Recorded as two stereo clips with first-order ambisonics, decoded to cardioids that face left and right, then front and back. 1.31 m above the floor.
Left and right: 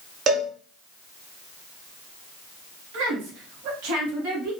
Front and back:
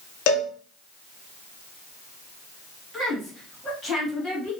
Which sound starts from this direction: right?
A woman speaking, at 2.9 s.